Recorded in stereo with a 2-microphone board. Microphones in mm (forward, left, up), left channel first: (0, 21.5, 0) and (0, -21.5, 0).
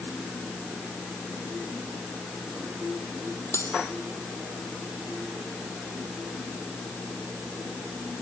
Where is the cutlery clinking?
80° left.